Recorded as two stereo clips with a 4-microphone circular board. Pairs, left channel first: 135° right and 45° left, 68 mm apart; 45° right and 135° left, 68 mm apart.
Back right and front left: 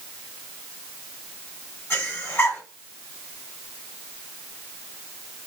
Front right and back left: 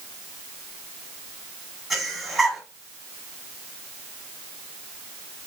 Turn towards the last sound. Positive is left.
turn(degrees=-140)